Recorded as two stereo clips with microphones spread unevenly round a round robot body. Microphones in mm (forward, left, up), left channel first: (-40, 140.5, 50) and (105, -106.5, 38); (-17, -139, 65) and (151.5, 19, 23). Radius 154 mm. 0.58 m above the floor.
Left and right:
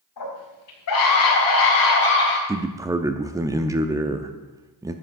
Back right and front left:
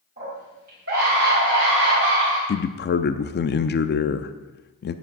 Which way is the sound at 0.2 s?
100° left.